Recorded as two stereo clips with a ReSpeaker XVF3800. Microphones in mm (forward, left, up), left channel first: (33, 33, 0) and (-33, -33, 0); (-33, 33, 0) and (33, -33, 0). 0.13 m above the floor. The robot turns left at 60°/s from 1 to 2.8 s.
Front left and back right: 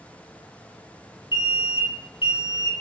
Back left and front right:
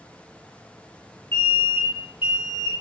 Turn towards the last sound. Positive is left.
turn(degrees=-15)